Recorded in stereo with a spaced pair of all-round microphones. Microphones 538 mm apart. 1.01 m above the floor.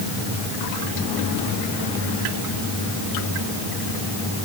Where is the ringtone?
I don't hear a ringtone.